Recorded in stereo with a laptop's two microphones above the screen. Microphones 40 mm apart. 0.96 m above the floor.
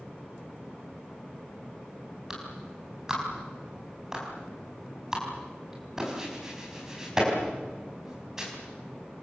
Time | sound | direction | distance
2.3 | a clap | 15° right (ahead or behind) | 5 m